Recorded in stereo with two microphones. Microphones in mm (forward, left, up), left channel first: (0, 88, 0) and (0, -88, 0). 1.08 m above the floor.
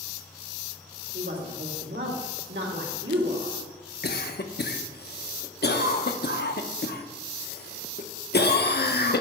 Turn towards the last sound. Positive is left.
turn(degrees=65)  # may be behind; listen again after turning